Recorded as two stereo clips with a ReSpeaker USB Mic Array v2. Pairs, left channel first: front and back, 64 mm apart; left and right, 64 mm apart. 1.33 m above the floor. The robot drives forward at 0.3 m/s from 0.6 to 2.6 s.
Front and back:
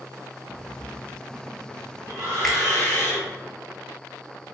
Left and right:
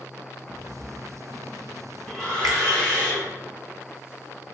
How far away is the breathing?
About 1.8 m.